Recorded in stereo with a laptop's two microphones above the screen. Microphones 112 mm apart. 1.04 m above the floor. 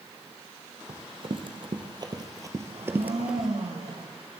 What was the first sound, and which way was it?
Running footsteps, 55° right (ahead or behind).